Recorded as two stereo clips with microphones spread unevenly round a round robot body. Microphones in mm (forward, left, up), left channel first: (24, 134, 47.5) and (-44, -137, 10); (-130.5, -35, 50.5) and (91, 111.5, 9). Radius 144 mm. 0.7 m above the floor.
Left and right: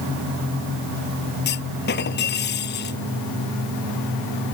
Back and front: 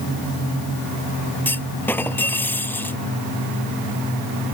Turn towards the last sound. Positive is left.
turn(degrees=130)